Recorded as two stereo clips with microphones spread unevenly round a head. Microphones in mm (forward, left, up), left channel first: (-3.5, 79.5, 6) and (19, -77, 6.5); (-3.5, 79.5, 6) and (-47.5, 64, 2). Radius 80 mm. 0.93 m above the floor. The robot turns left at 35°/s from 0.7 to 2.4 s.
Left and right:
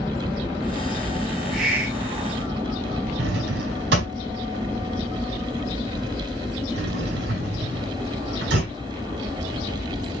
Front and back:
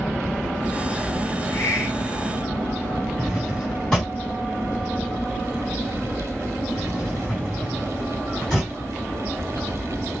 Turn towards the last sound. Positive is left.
turn(degrees=-65)